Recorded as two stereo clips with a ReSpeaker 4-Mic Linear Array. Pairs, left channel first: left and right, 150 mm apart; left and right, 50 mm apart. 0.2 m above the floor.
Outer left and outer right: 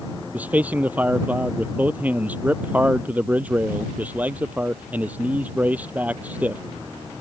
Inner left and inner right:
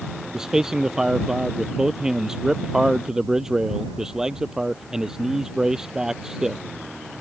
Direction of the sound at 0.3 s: 10° right (ahead or behind).